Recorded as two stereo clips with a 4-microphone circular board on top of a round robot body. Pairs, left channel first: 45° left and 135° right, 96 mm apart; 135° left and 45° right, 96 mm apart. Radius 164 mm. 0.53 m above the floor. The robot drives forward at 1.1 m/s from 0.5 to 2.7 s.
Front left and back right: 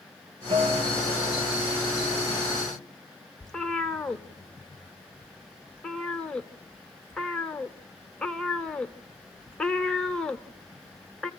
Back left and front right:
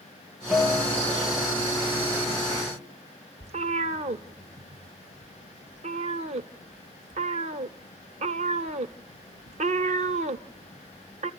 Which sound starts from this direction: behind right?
A guitar, at 0.5 s.